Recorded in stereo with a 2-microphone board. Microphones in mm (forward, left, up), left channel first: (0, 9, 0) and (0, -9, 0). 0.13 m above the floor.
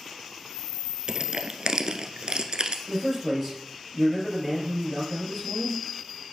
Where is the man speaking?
5° right (ahead or behind), 3 m.